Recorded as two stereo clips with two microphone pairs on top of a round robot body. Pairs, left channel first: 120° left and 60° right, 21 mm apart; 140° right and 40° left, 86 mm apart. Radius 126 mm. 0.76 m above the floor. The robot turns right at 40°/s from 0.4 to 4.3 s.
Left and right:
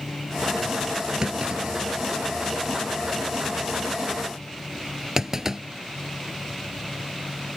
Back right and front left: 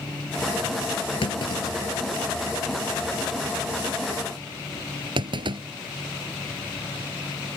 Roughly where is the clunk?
Behind right.